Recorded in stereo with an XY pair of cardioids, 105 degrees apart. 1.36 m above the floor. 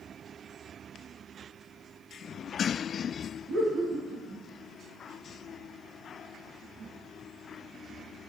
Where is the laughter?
65° right, 1.9 m.